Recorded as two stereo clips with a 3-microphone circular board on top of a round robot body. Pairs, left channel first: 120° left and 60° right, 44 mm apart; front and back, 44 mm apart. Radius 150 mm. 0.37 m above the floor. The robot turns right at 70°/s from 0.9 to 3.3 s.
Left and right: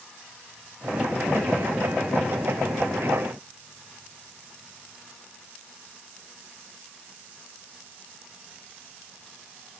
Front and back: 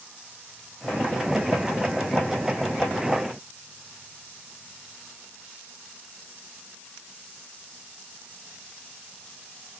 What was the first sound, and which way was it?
Only background noise.